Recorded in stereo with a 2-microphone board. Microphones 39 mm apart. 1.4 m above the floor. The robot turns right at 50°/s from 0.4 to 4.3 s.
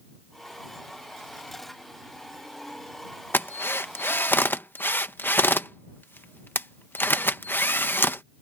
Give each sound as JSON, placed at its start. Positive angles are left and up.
{"t": 3.3, "sound": "a drill", "side_deg": 60}